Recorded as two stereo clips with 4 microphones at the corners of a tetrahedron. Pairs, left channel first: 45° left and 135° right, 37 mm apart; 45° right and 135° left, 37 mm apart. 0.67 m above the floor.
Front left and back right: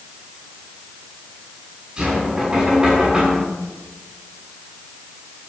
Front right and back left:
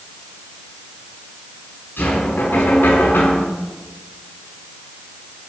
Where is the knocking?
60° right, 7 m.